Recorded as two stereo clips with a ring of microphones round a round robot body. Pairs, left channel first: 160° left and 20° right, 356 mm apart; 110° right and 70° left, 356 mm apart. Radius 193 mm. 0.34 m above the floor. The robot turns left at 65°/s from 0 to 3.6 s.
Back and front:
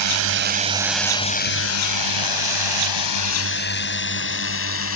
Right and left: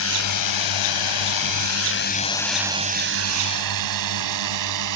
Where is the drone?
60° right; by 5.0 s 105° left.